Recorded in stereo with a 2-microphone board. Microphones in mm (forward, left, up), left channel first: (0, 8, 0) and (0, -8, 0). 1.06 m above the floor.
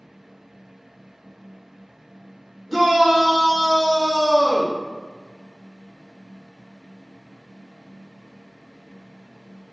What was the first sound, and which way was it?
A shout, 20° right (ahead or behind).